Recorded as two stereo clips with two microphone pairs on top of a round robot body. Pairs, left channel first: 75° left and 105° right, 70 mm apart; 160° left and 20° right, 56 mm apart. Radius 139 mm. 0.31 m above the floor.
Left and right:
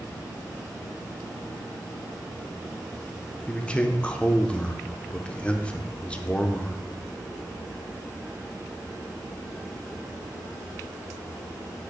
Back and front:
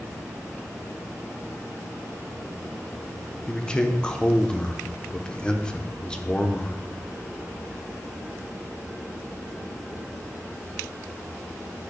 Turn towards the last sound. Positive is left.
turn(degrees=130)